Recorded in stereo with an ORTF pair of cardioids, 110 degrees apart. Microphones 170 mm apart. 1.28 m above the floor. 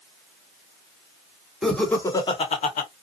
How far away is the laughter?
About 1.5 m.